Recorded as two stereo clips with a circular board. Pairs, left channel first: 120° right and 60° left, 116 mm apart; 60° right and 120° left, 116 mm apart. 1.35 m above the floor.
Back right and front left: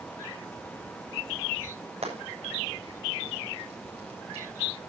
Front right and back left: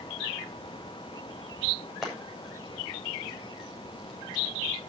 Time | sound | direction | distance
2.0 | frying | 30° left | 7.5 m